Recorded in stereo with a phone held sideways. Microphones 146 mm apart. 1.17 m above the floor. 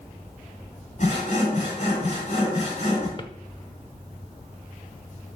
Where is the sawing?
60° left (ahead or behind), 6.5 m.